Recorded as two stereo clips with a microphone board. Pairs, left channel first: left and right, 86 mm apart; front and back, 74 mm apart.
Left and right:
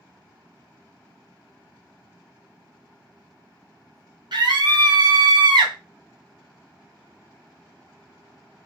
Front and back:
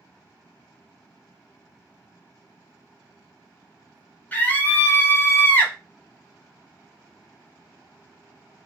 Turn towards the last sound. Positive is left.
turn(degrees=-65)